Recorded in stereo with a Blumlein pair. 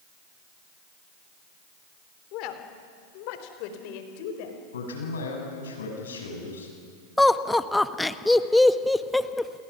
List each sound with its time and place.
2.3 s a woman speaking: 40° left, 3 m; by 4.6 s 50° left, 4.5 m
4.7 s a man speaking: 65° left, 7.5 m
7.2 s laughter: 5° left, 1.2 m